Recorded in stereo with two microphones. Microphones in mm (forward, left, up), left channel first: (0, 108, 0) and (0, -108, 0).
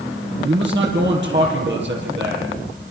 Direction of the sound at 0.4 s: 55° right (ahead or behind).